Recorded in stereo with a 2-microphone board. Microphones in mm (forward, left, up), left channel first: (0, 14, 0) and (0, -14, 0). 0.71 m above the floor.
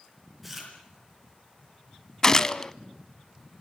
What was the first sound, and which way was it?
Chewing, centre (ahead or behind).